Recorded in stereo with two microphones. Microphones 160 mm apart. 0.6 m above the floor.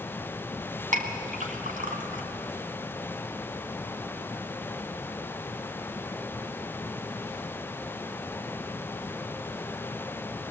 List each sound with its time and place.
0.9 s a clink: 55° right (ahead or behind), 2.5 m